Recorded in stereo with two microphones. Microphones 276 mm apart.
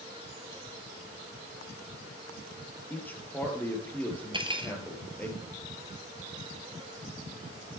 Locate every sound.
2.9 s a man speaking: 5° left (ahead or behind), 3 m
4.3 s cutlery clinking: 20° right (ahead or behind), 1.6 m